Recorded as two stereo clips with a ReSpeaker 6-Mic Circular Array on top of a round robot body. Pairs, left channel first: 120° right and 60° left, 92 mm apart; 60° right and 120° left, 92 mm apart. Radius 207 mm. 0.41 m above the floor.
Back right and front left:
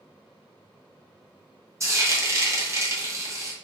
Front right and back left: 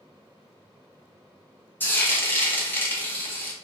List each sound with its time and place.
1.8 s frying: 5° left, 1.0 m